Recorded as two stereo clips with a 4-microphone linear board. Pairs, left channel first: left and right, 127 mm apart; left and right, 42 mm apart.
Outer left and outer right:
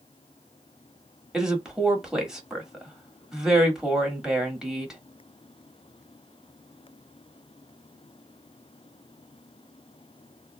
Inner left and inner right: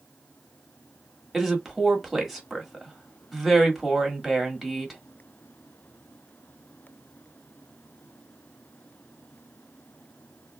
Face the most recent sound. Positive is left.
turn(degrees=-5)  # may be behind; listen again after turning